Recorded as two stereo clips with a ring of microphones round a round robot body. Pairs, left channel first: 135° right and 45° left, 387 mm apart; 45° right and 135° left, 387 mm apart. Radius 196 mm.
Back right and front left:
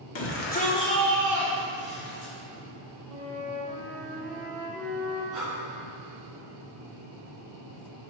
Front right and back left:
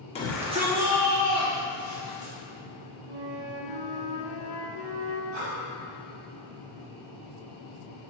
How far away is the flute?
About 1.6 m.